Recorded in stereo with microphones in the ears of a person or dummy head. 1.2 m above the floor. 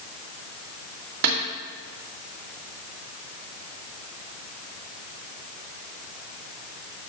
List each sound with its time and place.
1.2 s a snare drum: 60° right (ahead or behind), 2.5 m